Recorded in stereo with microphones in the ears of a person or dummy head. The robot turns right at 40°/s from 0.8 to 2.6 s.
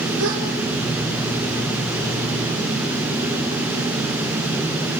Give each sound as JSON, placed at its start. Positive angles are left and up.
{"t": 0.2, "sound": "a gasp", "side_deg": -70, "distance_m": 5.0}